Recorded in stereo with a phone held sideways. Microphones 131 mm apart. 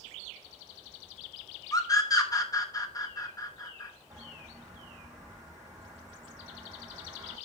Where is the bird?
25° right (ahead or behind), 6.5 m.